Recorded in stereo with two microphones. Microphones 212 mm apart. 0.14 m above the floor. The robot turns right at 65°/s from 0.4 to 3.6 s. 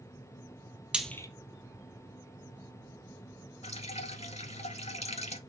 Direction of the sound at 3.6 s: 30° left (ahead or behind).